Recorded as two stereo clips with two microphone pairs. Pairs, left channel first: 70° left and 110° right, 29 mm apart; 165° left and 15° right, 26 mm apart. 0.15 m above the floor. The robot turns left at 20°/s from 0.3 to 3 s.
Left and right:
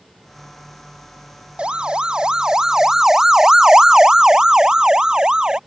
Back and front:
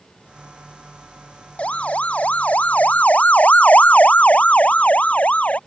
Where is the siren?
160° right; by 5.6 s 170° right.